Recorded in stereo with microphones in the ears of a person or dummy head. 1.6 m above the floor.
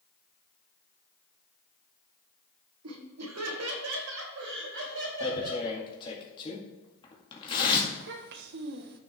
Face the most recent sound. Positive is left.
turn(degrees=-60)  # may be behind; listen again after turning